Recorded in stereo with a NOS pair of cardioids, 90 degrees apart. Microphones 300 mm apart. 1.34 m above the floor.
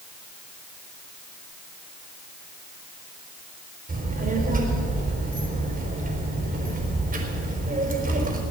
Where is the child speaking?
25° right, 4 m.